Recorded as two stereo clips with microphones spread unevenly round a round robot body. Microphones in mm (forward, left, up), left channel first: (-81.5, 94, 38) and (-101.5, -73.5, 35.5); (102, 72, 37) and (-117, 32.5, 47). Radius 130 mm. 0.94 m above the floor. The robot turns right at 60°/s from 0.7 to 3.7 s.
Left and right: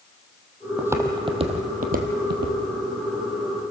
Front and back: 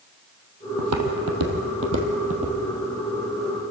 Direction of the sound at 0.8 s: 175° right.